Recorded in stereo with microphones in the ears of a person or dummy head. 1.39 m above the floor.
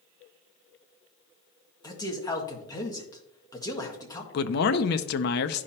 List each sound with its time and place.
1.8 s a man speaking: 20° left (ahead or behind), 1.6 m
4.3 s a man speaking: 55° left (ahead or behind), 0.6 m